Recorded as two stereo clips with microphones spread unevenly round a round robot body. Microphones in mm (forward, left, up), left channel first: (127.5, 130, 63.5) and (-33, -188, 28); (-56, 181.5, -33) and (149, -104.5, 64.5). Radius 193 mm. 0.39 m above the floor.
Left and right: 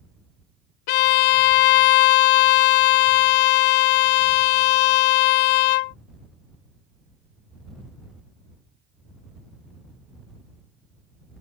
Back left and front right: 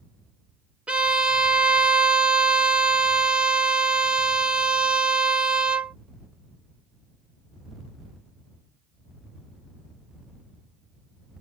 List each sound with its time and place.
0.9 s a violin: 40° left